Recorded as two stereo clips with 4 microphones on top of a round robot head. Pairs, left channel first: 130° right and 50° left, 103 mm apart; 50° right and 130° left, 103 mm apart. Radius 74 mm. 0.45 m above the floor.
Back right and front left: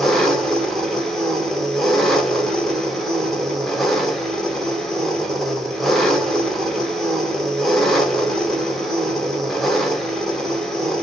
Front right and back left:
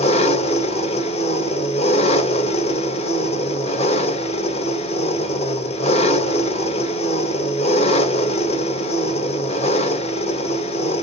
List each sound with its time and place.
0.0 s an engine running: 45° right, 1.6 m